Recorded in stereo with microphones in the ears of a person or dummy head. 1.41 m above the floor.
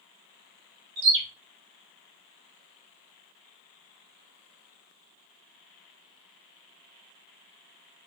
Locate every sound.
1.0 s a bird: 60° right (ahead or behind), 0.6 m